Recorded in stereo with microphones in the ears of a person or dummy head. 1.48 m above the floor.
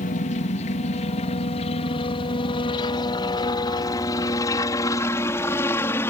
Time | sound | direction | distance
0.0 | a helicopter | 35° left (ahead or behind) | ?